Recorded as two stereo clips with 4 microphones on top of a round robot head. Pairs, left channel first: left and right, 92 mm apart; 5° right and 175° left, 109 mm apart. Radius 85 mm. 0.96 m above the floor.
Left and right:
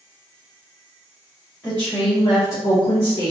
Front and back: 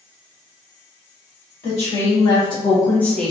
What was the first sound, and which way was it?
A woman speaking, 15° left.